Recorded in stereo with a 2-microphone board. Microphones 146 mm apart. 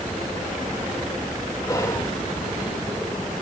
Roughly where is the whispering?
Left.